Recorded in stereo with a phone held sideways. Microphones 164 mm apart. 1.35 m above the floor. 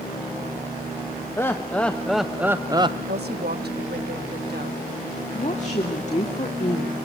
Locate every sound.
1.4 s laughter: 15° left (ahead or behind), 1.3 m; by 3.0 s 35° right (ahead or behind), 0.7 m
3.1 s a woman speaking: 85° right, 1.5 m
5.3 s a woman speaking: 45° left (ahead or behind), 2.5 m